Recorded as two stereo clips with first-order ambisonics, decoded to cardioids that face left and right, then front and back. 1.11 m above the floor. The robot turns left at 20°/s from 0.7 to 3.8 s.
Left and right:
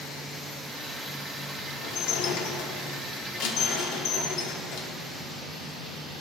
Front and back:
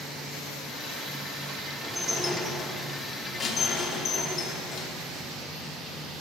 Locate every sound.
1.8 s dishes clattering: 100° left, 1.6 m; by 4.9 s 60° left, 1.6 m